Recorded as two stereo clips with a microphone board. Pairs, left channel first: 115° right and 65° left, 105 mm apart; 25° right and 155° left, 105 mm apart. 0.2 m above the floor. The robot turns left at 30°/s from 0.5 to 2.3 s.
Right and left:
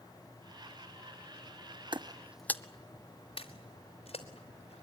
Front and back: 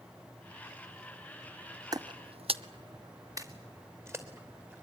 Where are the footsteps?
105° left, 0.7 m; by 4.8 s 135° right, 3.5 m.